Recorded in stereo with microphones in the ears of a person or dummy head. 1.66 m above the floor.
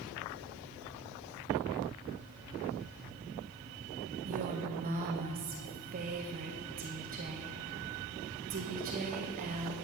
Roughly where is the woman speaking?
Right.